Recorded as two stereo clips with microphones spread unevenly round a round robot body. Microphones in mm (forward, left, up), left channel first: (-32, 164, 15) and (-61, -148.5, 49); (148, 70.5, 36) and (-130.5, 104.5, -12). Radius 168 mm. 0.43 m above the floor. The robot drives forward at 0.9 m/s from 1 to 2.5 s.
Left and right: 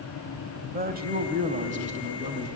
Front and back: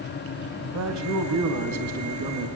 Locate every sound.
0.7 s a man speaking: 160° right, 2 m; by 2.5 s 165° right, 3.5 m